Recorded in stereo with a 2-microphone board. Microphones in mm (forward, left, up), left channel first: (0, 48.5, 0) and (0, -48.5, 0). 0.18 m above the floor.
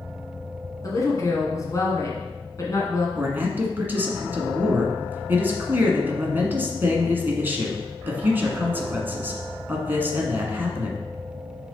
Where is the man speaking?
20° right (ahead or behind), 1.4 m.